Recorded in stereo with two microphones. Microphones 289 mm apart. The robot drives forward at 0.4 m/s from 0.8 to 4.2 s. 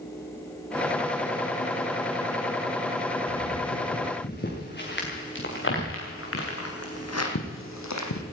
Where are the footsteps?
35° left (ahead or behind), 5.5 m; by 8.2 s 75° left (ahead or behind), 2.5 m.